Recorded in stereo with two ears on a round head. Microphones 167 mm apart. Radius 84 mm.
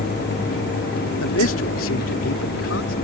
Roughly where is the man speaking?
Left.